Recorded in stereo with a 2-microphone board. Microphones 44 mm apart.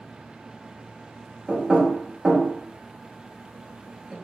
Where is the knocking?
15° right (ahead or behind), 1.1 m.